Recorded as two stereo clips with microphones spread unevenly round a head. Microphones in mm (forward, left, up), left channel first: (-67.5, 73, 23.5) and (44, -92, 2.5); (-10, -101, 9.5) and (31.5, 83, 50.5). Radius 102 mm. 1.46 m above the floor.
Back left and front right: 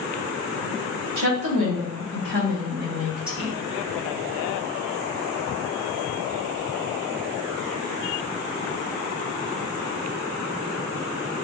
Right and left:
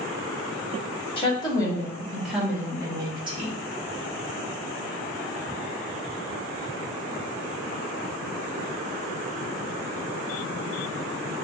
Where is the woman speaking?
40° right, 1.7 m; by 3.5 s 15° left, 2.0 m.